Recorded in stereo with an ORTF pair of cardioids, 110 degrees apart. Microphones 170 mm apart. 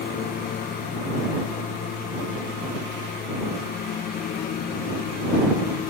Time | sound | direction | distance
0.0 | a lawn mower | 60° left | ?